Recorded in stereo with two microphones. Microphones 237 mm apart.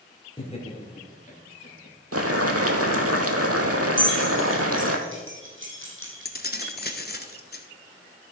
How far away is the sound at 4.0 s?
About 3 m.